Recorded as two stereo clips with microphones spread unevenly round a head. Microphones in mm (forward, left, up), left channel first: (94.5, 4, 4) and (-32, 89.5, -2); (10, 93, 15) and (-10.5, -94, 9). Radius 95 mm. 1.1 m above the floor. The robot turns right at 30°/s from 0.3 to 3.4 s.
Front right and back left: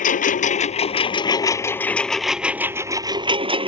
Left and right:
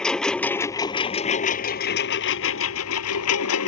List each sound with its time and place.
0.0 s a lawn mower: straight ahead; by 3.7 s 90° left